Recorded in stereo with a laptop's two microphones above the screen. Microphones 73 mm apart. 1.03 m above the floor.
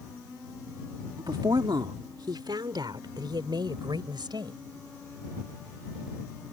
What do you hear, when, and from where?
1.2 s a woman speaking: 75° right (ahead or behind); by 4.6 s 85° right